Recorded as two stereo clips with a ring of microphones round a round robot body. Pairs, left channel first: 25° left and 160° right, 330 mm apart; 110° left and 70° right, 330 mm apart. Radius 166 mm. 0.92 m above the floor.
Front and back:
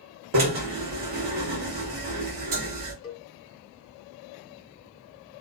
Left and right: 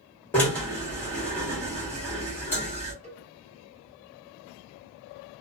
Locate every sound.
0.3 s a drill: 165° right, 1.4 m
3.0 s a cowbell: 5° right, 0.9 m